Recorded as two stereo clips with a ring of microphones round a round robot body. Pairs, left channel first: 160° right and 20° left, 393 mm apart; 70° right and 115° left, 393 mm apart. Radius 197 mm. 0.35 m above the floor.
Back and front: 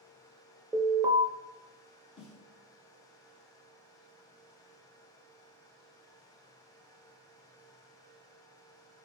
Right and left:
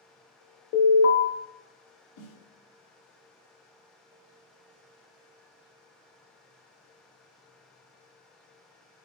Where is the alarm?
55° right, 0.6 m.